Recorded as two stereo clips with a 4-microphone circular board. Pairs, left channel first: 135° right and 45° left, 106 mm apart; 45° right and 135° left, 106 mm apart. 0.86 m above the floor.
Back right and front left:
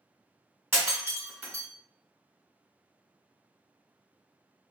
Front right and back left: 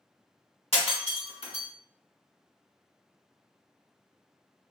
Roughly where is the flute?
I don't hear a flute.